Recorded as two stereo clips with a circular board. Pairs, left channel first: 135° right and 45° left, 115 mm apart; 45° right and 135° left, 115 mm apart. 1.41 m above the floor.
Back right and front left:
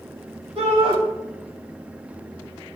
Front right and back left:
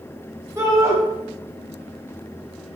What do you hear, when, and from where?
0.6 s a shout: 70° left, 0.9 m